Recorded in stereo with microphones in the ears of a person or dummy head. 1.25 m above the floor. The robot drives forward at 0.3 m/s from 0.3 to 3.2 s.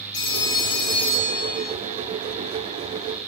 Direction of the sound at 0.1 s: 70° left (ahead or behind).